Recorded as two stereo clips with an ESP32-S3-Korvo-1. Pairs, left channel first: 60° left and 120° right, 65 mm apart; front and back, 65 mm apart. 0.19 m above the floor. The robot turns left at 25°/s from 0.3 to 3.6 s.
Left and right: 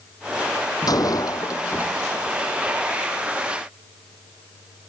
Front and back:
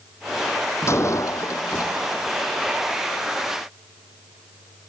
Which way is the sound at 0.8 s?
45° left.